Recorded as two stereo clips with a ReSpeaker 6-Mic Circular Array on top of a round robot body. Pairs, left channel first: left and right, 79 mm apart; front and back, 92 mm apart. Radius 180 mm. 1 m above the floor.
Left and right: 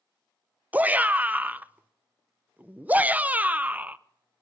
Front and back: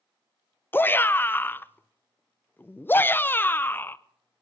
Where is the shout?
40° right, 0.8 m.